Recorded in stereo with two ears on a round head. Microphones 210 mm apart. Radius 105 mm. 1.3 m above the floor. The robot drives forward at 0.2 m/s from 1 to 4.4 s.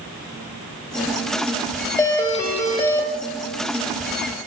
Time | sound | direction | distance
2.0 | a doorbell | 15° left (ahead or behind) | 0.8 m